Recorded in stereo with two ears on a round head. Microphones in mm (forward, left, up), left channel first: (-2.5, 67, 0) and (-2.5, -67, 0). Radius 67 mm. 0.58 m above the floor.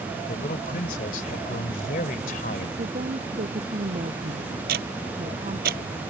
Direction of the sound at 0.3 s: 60° left (ahead or behind).